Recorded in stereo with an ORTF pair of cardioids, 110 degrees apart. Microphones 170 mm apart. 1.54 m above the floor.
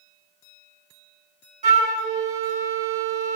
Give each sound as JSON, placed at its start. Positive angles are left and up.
{"t": 1.6, "sound": "a flute", "azimuth_deg": -45, "distance_m": 2.0}